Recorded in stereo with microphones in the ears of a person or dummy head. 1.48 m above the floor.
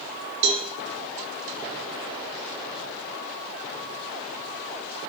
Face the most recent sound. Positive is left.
turn(degrees=-65)  # may be behind; listen again after turning